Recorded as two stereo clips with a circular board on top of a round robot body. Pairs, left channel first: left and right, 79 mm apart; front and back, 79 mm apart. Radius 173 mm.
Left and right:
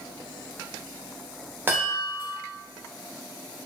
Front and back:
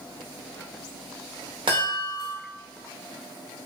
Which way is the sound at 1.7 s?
155° right.